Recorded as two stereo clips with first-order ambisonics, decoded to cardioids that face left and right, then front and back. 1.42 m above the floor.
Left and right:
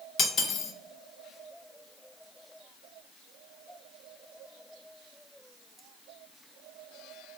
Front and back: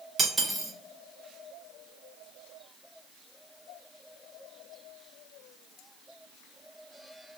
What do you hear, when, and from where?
0.2 s cutlery clinking: 115° left, 0.6 m